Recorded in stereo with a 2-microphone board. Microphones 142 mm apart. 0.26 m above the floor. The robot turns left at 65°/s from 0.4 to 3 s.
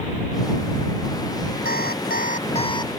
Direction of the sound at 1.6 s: 105° left.